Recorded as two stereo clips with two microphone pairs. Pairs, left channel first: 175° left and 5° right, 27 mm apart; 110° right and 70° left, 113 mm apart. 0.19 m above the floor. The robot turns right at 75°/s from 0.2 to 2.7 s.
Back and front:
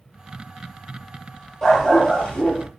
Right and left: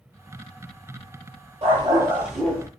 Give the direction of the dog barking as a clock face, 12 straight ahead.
8 o'clock.